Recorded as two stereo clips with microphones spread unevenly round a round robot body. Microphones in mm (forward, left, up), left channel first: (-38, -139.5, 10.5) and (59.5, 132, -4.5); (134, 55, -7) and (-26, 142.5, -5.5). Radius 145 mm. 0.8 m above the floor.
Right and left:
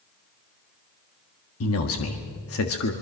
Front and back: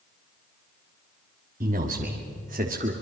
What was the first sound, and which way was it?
A man speaking, 150° right.